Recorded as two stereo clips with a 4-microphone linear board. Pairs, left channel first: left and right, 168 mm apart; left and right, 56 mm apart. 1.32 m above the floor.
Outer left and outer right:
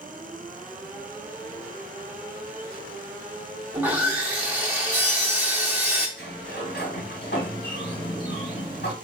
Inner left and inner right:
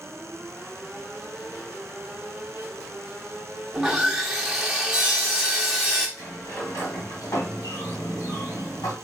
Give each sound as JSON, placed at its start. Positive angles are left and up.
{"t": 3.7, "sound": "sawing", "side_deg": -10, "distance_m": 1.0}
{"t": 6.2, "sound": "a sliding door", "side_deg": 80, "distance_m": 1.6}